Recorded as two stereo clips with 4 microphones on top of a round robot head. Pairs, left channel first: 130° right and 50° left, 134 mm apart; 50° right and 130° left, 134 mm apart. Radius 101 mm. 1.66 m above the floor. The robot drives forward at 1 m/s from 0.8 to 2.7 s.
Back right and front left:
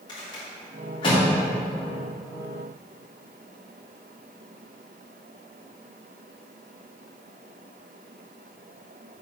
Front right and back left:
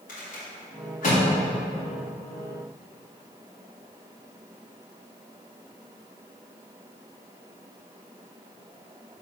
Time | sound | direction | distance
0.1 | a rattle | 70° right | 2.5 m